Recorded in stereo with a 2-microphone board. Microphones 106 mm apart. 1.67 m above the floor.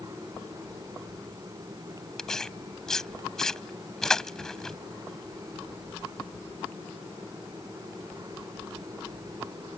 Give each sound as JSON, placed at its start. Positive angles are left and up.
{"t": 2.2, "sound": "tearing paper", "side_deg": 5}